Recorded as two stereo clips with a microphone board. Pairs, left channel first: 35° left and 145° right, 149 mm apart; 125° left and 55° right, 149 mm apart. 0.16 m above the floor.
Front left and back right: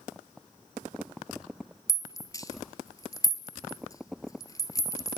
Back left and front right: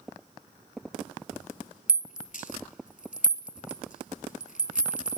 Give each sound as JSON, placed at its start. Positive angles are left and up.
{"t": 1.9, "sound": "a rattle", "azimuth_deg": 100, "distance_m": 0.9}